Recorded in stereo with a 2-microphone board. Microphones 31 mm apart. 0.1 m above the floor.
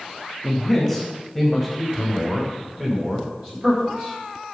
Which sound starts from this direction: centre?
A man speaking, at 0.4 s.